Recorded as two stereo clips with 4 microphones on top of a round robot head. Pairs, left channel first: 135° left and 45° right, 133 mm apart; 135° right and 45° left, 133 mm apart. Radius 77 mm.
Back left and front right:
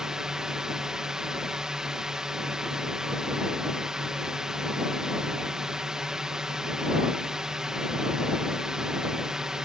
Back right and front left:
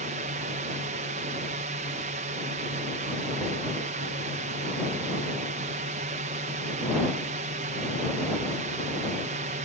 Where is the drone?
45° left.